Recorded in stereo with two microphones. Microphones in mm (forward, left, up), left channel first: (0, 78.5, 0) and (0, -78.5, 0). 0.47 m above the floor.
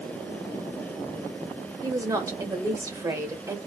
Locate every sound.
1.8 s a woman speaking: 20° right (ahead or behind), 1.2 m